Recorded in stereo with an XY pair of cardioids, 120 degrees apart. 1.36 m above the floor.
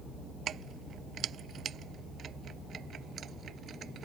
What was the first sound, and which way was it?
Keys jangling, 50° right.